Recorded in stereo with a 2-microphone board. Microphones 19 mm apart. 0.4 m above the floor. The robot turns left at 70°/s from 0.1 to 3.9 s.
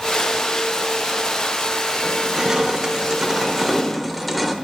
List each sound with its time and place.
2.0 s crushing: 50° right, 0.9 m; by 4.5 s straight behind, 0.9 m